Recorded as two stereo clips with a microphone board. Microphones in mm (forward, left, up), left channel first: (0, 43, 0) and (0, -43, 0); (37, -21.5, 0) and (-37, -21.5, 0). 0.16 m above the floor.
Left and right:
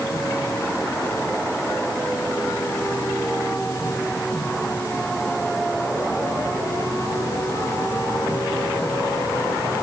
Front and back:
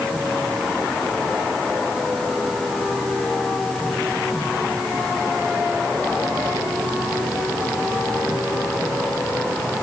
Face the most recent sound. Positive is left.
No sound to turn to.